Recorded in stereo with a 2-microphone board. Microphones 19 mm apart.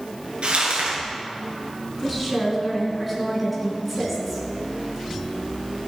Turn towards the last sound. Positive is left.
turn(degrees=-5)  # may be behind; listen again after turning